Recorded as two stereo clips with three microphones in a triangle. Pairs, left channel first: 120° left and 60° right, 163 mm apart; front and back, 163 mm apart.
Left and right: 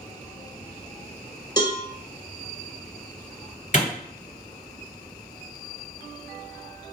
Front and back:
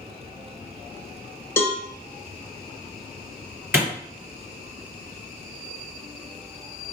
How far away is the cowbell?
About 0.6 m.